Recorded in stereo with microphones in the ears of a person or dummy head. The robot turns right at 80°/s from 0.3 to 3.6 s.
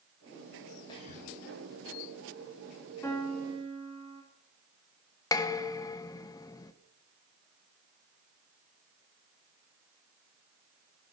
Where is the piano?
165° left, 3 m; by 4.2 s 150° right, 3 m.